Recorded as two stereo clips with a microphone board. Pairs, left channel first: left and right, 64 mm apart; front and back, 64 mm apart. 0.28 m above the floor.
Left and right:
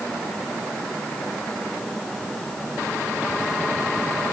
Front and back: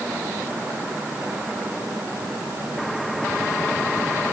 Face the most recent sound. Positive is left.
No sound to turn to.